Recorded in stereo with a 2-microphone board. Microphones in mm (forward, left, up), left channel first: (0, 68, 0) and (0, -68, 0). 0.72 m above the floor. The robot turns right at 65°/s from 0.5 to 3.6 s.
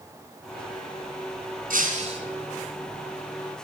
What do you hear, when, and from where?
1.7 s breaking glass: 75° right, 3.5 m; by 2.2 s 40° right, 3.5 m